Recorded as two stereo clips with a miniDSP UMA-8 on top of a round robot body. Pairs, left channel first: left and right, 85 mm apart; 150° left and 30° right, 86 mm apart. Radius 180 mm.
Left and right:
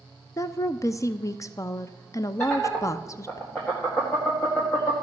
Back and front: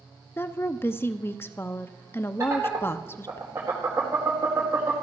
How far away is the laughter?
About 2 m.